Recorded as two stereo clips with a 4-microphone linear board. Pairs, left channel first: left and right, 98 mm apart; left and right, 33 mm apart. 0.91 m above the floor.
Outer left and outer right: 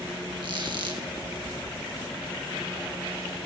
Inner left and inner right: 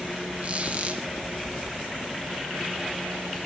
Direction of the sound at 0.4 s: 50° right (ahead or behind).